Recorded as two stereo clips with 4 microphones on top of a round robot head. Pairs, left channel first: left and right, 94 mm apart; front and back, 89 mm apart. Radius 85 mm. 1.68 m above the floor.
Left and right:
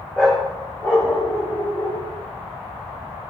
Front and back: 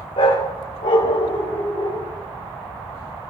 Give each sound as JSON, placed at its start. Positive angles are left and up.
{"t": 0.2, "sound": "a dog barking", "azimuth_deg": 5, "distance_m": 1.9}